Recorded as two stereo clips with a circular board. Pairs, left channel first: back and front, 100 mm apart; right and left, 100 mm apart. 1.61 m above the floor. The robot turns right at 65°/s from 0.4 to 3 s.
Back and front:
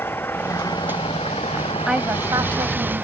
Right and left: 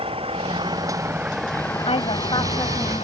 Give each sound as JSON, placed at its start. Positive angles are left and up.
{"t": 0.0, "sound": "an engine running", "azimuth_deg": 110}
{"t": 1.9, "sound": "a woman speaking", "azimuth_deg": -85}